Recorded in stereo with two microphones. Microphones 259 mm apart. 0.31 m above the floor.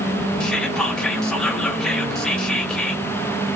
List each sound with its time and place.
0.4 s whispering: 5° left (ahead or behind), 1.0 m